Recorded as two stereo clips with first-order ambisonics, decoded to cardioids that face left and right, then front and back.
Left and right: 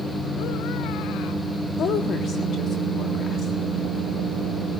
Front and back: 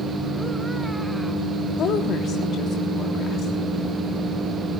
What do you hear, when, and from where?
1.8 s a woman speaking: 45° left, 1.3 m